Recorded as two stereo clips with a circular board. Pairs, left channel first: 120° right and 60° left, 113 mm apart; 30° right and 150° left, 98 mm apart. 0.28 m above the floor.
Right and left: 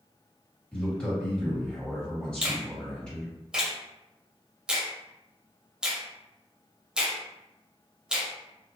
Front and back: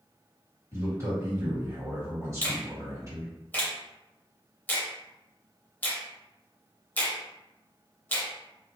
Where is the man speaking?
165° left, 1.7 m.